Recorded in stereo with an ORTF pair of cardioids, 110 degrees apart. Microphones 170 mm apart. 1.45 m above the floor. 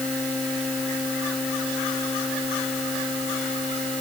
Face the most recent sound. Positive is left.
No sound to turn to.